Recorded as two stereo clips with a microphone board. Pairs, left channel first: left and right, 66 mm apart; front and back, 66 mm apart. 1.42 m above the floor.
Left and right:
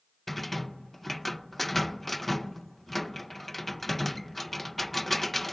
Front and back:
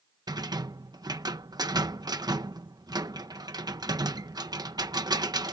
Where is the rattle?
Straight behind.